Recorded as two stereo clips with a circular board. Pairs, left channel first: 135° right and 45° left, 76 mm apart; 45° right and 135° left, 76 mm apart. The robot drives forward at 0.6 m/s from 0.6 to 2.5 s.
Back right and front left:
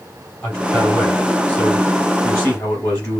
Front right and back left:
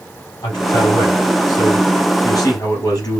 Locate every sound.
0.4 s a man speaking: 70° right, 5 m; by 3.2 s 85° right, 4.5 m